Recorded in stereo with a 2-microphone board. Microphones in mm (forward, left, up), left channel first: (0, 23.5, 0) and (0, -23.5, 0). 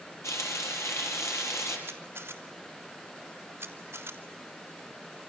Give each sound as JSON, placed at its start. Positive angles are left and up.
{"t": 0.2, "sound": "frying", "side_deg": 85, "distance_m": 6.5}
{"t": 1.9, "sound": "a camera shutter", "side_deg": -55, "distance_m": 3.0}